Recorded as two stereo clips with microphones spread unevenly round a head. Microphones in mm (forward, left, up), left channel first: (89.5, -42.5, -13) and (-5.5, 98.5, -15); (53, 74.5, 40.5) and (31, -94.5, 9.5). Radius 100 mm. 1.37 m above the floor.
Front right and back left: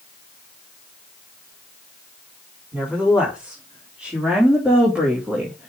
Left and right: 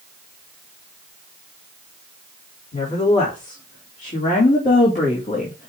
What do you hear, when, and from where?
2.7 s a woman speaking: 40° left, 4.5 m